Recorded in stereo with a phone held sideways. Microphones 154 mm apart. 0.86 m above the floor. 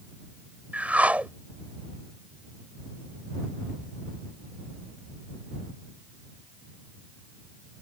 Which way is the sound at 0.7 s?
10° right (ahead or behind).